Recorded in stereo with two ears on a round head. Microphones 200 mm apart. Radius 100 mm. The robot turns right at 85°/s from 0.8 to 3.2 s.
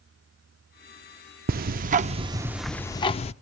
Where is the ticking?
100° right, 0.5 m; by 3.3 s 45° left, 0.5 m.